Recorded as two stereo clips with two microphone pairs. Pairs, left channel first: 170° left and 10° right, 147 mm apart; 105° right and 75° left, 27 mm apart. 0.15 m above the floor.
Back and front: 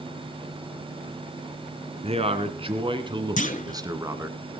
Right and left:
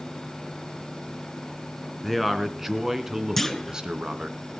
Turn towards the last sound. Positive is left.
turn(degrees=175)